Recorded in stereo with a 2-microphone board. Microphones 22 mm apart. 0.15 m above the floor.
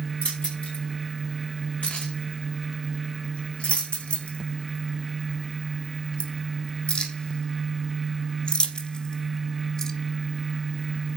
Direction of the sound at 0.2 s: 70° left (ahead or behind).